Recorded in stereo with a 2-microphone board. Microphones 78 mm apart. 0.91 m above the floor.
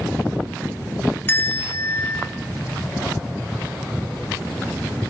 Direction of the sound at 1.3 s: 30° left (ahead or behind).